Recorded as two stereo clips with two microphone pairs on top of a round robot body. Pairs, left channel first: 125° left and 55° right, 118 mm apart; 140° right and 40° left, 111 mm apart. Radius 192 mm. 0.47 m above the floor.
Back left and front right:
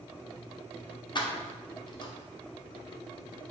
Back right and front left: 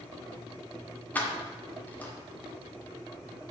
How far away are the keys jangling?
About 1.0 m.